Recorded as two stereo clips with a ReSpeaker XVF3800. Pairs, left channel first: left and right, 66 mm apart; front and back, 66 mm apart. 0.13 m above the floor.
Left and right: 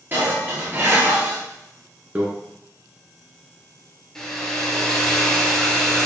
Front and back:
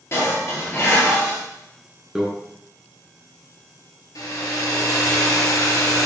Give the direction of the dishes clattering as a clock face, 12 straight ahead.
1 o'clock.